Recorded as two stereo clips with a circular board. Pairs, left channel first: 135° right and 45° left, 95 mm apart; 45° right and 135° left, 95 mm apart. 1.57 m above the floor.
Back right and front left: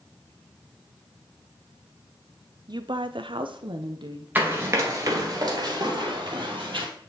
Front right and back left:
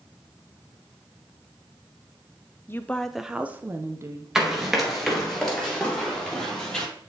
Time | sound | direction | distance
2.7 | a woman speaking | 15° left | 0.5 m
4.3 | running footsteps | 60° left | 1.6 m